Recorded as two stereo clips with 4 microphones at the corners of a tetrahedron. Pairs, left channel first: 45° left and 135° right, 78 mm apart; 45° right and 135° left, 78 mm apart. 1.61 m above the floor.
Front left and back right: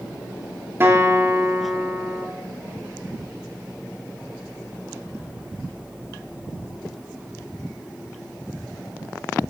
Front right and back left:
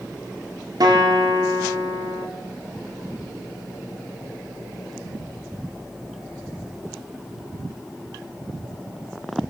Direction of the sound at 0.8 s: 165° left.